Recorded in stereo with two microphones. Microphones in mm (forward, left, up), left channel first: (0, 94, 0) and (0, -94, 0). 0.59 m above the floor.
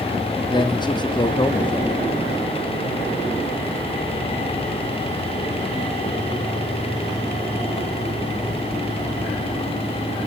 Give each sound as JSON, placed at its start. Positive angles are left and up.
{"t": 0.5, "sound": "a man speaking", "side_deg": 25, "distance_m": 0.7}